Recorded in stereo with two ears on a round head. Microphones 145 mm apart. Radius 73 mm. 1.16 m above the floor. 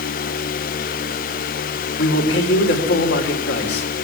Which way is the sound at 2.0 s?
80° left.